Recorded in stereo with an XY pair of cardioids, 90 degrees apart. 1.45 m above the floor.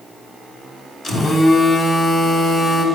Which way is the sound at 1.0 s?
60° left.